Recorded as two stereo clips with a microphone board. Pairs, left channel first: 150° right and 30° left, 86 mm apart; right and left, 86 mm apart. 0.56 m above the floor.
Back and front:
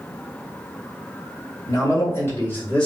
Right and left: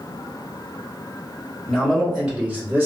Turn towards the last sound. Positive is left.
turn(degrees=140)